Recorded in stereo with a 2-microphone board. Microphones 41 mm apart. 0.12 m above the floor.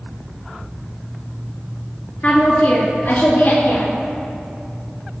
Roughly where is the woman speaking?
Left.